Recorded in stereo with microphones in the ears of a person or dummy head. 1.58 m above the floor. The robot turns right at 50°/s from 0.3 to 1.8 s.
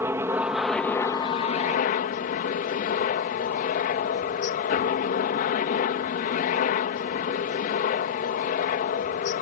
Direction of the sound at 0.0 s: 15° right.